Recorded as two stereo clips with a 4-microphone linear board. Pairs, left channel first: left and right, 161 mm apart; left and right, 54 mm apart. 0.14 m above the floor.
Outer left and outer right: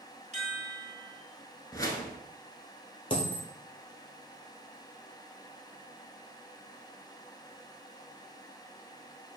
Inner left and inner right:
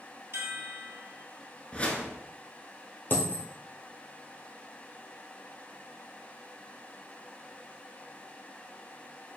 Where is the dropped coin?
35° left (ahead or behind), 1.0 m.